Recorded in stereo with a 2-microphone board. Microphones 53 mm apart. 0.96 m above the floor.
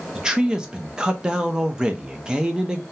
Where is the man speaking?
15° right (ahead or behind), 0.7 m.